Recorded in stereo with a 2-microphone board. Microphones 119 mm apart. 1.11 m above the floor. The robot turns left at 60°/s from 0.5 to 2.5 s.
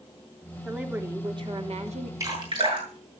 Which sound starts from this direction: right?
Dripping, at 2.2 s.